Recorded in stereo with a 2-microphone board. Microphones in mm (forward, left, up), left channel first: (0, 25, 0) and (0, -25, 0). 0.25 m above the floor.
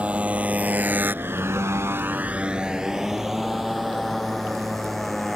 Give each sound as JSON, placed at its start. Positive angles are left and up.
{"t": 0.0, "sound": "a motorcycle", "side_deg": -25}